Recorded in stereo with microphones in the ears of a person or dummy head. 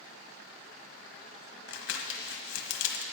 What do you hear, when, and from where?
1.7 s crumpling: 85° left, 1.3 m